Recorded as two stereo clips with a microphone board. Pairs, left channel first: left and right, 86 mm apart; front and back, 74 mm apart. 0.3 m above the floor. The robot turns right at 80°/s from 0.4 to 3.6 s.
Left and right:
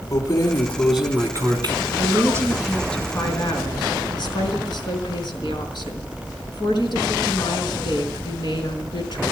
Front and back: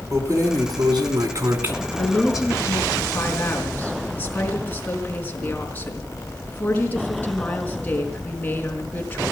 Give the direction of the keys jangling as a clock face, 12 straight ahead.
7 o'clock.